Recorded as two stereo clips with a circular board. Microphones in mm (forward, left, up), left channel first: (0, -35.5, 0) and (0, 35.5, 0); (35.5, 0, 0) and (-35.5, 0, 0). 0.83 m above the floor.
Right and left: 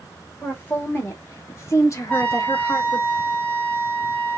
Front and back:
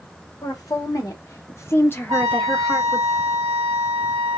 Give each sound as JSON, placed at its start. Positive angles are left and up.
{"t": 0.4, "sound": "a woman speaking", "azimuth_deg": -30, "distance_m": 1.6}
{"t": 2.1, "sound": "a trumpet", "azimuth_deg": -155, "distance_m": 1.3}